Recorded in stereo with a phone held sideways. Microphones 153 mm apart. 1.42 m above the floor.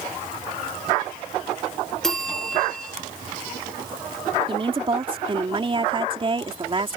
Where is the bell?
5° left (ahead or behind).